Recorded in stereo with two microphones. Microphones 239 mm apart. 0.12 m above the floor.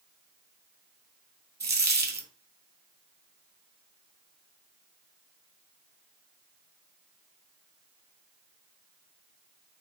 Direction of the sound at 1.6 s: 45° right (ahead or behind).